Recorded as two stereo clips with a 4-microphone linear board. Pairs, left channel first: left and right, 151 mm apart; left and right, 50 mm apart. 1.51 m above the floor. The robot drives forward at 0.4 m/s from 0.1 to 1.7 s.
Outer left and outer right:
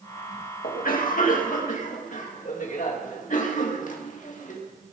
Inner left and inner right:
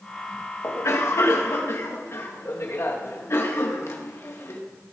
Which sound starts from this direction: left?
A cough, at 0.6 s.